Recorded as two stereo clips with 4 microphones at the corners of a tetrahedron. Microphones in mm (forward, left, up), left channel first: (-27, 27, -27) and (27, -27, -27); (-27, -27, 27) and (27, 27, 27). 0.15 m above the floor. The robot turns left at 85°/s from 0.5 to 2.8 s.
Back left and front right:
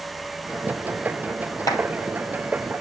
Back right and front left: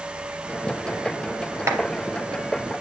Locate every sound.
1.7 s a clap: 95° left, 2.5 m; by 1.8 s 80° left, 2.5 m